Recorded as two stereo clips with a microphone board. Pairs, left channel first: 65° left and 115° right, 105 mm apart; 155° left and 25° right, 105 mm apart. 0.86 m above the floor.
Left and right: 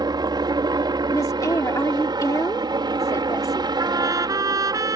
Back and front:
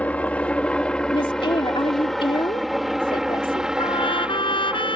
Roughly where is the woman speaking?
Behind left.